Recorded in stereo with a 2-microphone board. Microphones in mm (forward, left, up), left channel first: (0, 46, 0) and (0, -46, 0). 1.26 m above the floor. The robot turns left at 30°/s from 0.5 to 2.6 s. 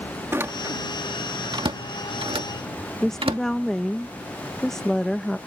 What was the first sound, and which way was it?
A door slam, 25° right (ahead or behind).